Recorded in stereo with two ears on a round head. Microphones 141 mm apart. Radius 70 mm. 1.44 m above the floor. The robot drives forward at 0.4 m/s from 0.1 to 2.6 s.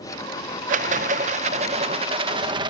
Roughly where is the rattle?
Right.